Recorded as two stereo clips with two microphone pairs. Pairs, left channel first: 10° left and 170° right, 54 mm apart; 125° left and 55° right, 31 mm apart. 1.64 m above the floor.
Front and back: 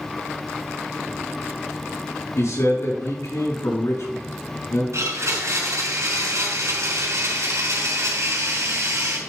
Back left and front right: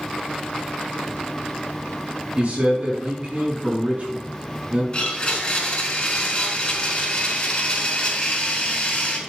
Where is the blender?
165° left, 4 m.